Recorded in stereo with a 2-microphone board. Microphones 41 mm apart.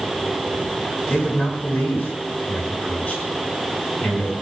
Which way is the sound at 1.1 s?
50° left (ahead or behind).